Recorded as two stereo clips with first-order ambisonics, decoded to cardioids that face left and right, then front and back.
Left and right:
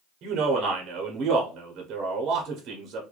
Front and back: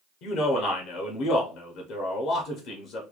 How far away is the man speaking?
About 0.8 m.